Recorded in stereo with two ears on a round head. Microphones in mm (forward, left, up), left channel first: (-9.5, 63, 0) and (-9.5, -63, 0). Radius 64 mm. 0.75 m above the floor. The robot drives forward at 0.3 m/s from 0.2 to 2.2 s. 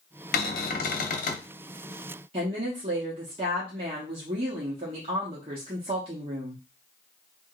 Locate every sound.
0.3 s a cupboard door: 80° left, 0.7 m; by 1.5 s 60° left (ahead or behind), 0.8 m
2.3 s a woman speaking: 45° right (ahead or behind), 0.9 m